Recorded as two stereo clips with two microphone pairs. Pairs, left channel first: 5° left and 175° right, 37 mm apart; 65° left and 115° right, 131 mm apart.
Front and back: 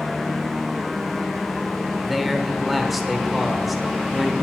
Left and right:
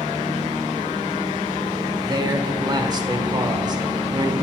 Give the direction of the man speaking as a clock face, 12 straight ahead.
3 o'clock.